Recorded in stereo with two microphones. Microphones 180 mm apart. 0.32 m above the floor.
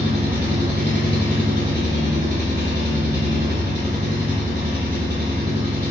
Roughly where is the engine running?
Right.